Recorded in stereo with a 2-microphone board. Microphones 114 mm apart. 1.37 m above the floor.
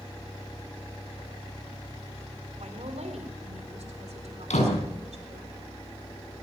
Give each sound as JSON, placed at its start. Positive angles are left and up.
{"t": 2.6, "sound": "a woman speaking", "side_deg": -75, "distance_m": 4.0}
{"t": 4.5, "sound": "a door slam", "side_deg": 85, "distance_m": 8.0}